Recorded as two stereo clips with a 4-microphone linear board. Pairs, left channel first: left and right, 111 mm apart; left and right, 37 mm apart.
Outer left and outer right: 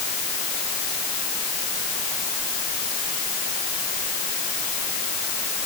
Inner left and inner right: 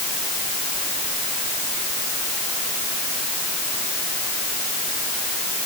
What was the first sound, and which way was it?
Only background noise.